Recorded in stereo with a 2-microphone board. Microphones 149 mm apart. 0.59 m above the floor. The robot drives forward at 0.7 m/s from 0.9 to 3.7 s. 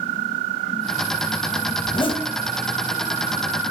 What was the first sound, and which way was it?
A zipper, 35° left (ahead or behind).